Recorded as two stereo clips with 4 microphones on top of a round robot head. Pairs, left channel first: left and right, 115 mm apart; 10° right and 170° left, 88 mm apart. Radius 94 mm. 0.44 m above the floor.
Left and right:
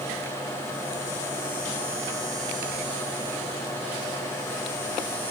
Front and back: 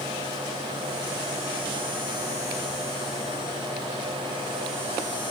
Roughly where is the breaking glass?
I don't hear breaking glass.